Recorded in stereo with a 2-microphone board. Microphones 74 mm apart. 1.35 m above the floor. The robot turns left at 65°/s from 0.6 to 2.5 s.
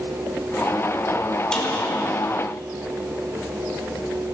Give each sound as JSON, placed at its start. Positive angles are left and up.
{"t": 1.5, "sound": "a snare drum", "side_deg": 10, "distance_m": 4.5}